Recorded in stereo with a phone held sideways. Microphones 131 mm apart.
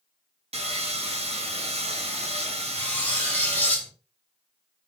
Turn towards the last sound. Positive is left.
turn(degrees=15)  # may be behind; listen again after turning